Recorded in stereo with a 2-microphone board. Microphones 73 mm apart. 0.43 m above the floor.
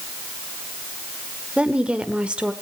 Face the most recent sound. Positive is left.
turn(degrees=-15)  # may be behind; listen again after turning